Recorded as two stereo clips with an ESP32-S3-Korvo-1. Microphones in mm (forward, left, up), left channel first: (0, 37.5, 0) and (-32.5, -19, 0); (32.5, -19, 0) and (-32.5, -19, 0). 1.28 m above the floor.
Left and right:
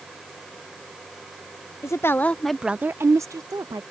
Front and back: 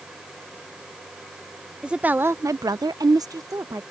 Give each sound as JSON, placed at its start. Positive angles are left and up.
{"t": 1.8, "sound": "a woman speaking", "azimuth_deg": 105}